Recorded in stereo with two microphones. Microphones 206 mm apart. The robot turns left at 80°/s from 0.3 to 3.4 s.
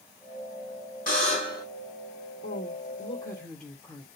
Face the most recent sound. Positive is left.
turn(degrees=5)